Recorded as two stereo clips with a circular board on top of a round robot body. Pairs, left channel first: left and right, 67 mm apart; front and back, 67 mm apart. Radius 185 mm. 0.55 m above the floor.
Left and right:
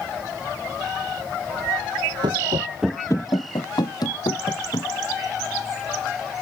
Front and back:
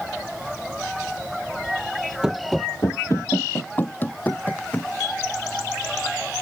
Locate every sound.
2.2 s running footsteps: 100° right; by 4.9 s 65° left